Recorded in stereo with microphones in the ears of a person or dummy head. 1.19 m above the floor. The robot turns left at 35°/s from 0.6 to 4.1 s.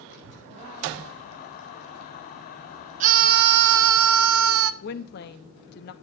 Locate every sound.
0.1 s a child speaking: 50° left (ahead or behind), 4 m; by 4.0 s 10° left (ahead or behind), 4 m
3.0 s a scream: 40° right, 0.7 m; by 4.7 s 75° right, 0.7 m
4.8 s a woman speaking: 50° left (ahead or behind), 1.1 m